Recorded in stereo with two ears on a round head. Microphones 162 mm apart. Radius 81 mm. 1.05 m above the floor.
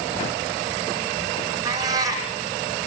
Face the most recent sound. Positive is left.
turn(degrees=-20)  # may be behind; listen again after turning